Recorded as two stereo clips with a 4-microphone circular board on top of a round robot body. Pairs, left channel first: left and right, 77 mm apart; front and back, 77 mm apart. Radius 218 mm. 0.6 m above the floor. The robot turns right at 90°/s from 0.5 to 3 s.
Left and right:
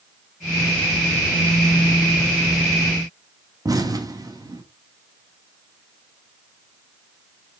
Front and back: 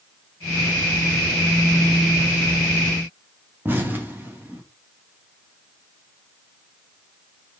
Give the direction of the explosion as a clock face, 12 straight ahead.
4 o'clock.